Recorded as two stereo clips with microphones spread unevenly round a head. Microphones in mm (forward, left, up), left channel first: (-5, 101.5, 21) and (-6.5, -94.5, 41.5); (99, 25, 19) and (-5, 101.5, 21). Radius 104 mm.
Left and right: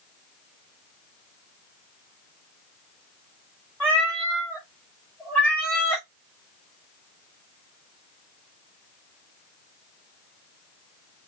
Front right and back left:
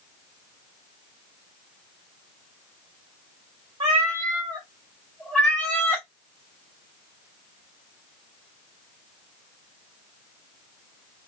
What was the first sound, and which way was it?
A cat meowing, 175° left.